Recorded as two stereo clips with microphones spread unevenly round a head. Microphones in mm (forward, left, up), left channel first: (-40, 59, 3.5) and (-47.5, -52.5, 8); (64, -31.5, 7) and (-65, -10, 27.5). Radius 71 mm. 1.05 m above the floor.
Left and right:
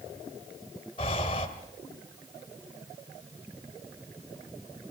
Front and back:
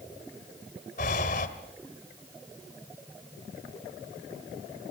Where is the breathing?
30° left, 1.6 m.